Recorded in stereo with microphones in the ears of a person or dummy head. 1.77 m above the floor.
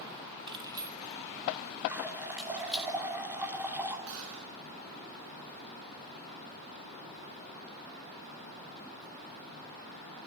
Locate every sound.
0.5 s keys jangling: 25° right (ahead or behind), 1.6 m; by 2.9 s centre (ahead or behind), 3 m
1.9 s a running tap: 15° right (ahead or behind), 2.5 m
4.1 s a gunshot: 75° right (ahead or behind), 7 m